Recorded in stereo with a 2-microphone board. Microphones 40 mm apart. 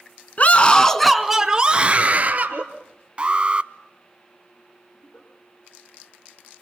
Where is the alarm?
30° right (ahead or behind), 0.8 m.